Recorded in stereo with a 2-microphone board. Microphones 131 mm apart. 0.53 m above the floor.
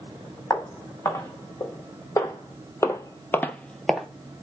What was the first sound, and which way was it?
Footsteps, 25° left (ahead or behind).